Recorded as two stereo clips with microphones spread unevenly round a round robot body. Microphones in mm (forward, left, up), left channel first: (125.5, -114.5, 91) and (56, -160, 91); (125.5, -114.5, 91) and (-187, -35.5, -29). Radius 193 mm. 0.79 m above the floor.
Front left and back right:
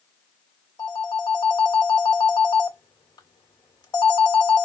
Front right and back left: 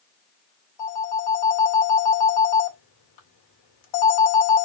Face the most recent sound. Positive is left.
turn(degrees=0)